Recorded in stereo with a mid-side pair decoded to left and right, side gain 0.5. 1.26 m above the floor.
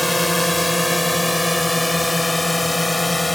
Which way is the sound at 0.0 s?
5° left.